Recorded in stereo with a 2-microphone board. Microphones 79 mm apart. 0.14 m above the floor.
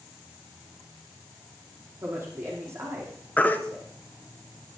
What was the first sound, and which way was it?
A woman speaking, 35° right (ahead or behind).